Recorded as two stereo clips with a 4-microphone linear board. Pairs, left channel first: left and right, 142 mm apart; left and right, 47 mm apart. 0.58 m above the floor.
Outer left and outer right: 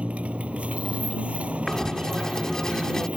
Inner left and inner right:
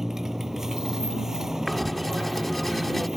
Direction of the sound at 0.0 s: 10° right (ahead or behind).